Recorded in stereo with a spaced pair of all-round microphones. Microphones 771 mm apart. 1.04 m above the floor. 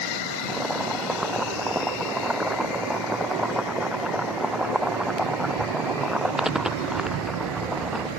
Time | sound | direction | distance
0.5 | boiling | centre (ahead or behind) | ?